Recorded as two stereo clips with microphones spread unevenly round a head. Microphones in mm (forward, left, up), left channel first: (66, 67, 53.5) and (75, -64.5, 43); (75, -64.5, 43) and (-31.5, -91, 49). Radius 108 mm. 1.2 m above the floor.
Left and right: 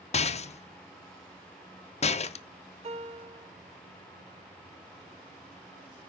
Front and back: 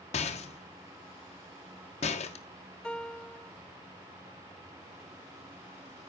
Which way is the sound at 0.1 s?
50° left.